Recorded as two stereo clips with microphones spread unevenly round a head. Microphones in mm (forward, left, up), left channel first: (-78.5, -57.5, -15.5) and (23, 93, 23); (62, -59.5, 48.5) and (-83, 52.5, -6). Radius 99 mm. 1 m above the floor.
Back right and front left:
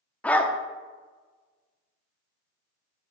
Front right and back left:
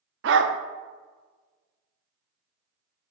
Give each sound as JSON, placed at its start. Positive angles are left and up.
{"t": 0.2, "sound": "a dog barking", "azimuth_deg": 140, "distance_m": 0.5}